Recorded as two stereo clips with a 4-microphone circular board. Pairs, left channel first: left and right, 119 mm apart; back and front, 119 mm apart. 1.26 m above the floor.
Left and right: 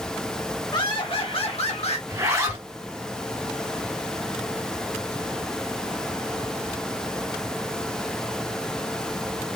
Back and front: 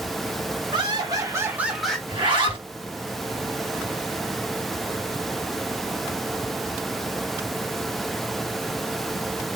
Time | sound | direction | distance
0.7 | laughter | 45° left | 1.5 m
2.1 | a zipper | 30° right | 1.1 m